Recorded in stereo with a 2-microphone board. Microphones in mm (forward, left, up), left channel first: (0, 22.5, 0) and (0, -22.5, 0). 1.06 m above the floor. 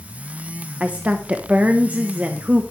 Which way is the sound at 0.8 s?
30° right (ahead or behind).